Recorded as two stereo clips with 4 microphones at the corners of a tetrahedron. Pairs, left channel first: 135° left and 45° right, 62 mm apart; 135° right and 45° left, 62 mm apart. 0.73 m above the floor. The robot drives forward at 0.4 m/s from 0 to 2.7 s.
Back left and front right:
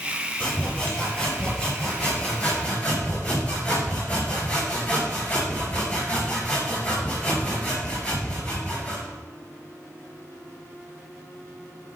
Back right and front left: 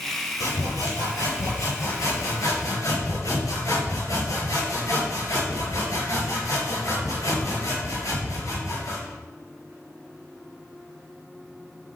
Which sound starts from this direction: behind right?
Sawing, at 0.4 s.